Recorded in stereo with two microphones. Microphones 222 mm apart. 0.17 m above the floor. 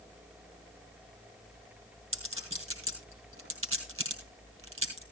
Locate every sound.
2.1 s a clink: 75° right (ahead or behind), 2.5 m